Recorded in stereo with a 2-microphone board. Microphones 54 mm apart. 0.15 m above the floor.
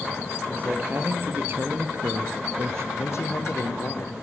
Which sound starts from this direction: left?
A man speaking, at 3.0 s.